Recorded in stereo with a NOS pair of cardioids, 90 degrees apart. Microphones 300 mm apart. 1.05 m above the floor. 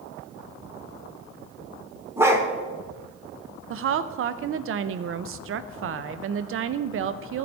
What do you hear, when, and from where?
2.2 s a dog barking: 10° right, 1.3 m
3.7 s a woman speaking: 50° right, 0.5 m